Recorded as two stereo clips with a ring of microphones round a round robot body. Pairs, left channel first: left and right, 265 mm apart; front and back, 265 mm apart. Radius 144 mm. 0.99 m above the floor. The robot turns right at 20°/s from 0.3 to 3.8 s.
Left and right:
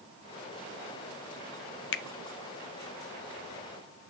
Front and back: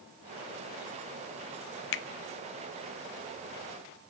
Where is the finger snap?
45° left, 0.5 m.